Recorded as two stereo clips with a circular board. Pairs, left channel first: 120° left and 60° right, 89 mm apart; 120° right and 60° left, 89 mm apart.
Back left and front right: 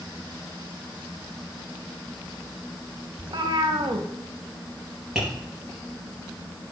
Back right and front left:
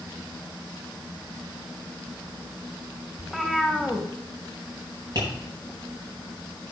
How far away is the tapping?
About 6 m.